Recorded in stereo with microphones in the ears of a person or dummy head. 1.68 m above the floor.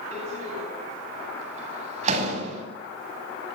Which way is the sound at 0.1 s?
40° right (ahead or behind).